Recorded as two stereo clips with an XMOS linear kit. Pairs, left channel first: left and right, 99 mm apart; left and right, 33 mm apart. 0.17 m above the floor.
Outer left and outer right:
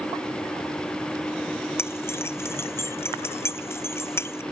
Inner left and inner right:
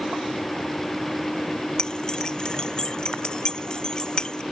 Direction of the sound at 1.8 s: 25° left (ahead or behind).